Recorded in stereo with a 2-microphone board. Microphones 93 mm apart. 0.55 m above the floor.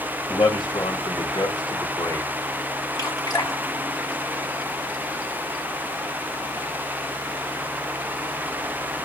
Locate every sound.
0.3 s a man speaking: 55° left (ahead or behind), 2 m; by 2.3 s 40° left (ahead or behind), 1.9 m
3.0 s dripping: 40° left (ahead or behind), 1.7 m